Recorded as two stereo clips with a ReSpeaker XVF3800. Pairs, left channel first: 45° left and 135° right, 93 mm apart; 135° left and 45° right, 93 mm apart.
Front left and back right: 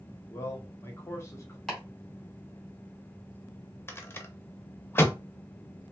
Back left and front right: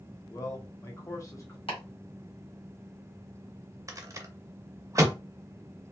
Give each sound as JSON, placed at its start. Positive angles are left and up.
{"t": 0.3, "sound": "a man speaking", "azimuth_deg": 95, "distance_m": 0.9}
{"t": 1.7, "sound": "chopping", "azimuth_deg": 130, "distance_m": 1.5}
{"t": 3.9, "sound": "a rattle", "azimuth_deg": -10, "distance_m": 0.5}